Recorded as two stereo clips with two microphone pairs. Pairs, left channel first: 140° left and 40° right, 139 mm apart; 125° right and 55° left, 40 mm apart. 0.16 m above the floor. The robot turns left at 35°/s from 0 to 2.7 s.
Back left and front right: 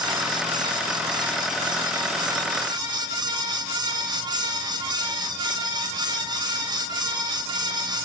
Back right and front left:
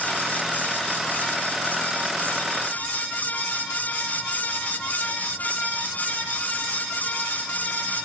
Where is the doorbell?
I don't hear a doorbell.